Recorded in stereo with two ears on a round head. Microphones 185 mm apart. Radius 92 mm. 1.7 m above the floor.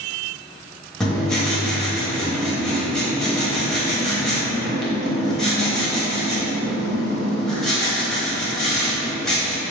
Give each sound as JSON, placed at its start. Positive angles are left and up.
{"t": 1.0, "sound": "writing", "side_deg": 0, "distance_m": 0.8}